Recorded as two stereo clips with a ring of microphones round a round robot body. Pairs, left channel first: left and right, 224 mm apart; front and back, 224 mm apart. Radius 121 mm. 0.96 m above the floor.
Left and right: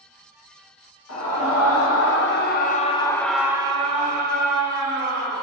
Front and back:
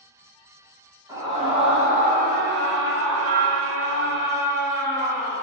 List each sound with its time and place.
1.1 s a scream: 105° left, 1.2 m; by 5.4 s 120° right, 1.3 m